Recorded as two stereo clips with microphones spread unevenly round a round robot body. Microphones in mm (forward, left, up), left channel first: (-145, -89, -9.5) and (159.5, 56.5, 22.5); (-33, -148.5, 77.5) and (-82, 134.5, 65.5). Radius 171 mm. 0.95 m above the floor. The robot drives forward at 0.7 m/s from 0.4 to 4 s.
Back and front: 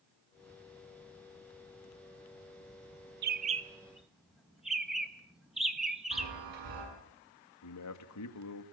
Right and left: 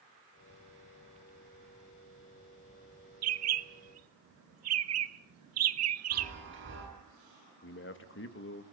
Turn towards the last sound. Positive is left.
turn(degrees=-125)